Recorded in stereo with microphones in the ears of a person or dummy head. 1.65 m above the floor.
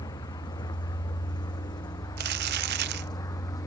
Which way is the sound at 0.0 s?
25° left (ahead or behind).